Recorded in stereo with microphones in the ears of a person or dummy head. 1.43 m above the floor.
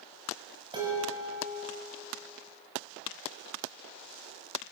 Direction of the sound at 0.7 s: 20° right (ahead or behind).